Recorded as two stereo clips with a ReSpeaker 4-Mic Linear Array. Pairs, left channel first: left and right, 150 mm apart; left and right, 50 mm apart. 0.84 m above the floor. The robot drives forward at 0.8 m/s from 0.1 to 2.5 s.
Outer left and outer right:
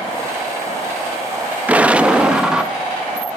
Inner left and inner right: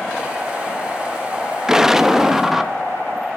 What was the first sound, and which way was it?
An explosion, 10° right (ahead or behind).